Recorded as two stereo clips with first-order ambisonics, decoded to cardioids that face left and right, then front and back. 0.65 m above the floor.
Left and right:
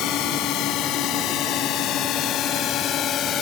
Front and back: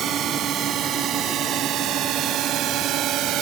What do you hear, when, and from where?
0.0 s a drone: 125° left; by 3.4 s 140° left